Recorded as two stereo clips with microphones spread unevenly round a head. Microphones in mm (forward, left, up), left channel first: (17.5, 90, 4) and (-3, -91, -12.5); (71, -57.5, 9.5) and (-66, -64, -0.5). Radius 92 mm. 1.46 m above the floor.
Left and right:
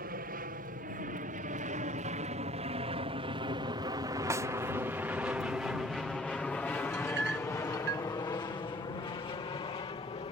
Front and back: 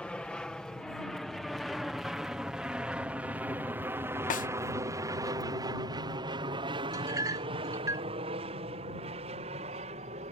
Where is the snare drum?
25° right.